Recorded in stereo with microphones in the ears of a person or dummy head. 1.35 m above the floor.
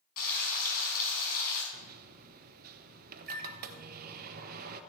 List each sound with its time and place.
0.2 s frying: 50° left (ahead or behind), 4.5 m
1.7 s a microwave: 50° right (ahead or behind), 1.0 m